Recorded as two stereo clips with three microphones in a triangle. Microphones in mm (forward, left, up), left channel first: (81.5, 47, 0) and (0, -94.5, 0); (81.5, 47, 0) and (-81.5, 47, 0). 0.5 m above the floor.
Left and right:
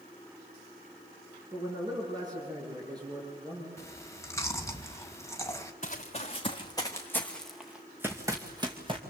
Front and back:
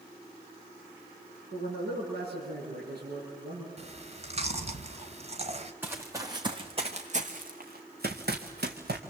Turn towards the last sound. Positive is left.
turn(degrees=-175)